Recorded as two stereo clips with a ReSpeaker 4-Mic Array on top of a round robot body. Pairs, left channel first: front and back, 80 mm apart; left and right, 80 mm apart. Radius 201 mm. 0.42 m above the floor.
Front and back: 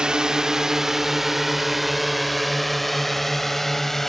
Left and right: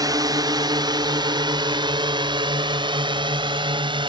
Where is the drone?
100° right; by 4.1 s 85° right.